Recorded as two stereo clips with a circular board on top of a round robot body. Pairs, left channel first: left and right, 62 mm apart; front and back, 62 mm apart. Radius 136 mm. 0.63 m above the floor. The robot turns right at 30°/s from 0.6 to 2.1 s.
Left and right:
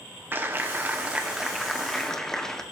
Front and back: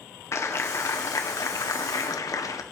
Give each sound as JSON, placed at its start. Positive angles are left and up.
{"t": 0.3, "sound": "a clap", "azimuth_deg": -35, "distance_m": 1.6}